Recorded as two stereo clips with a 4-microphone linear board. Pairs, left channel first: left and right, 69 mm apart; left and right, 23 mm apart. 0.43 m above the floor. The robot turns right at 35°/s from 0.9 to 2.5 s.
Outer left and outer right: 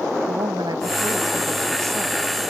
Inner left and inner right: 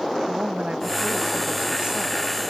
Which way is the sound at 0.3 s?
80° right.